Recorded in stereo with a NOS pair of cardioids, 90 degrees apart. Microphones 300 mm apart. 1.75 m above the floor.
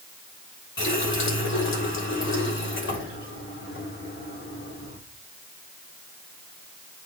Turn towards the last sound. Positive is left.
turn(degrees=40)